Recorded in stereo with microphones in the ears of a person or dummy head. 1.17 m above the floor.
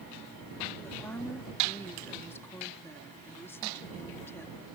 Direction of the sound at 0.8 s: 15° left (ahead or behind).